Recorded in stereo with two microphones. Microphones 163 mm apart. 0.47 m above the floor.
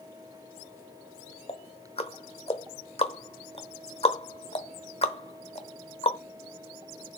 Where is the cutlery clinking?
I don't hear cutlery clinking.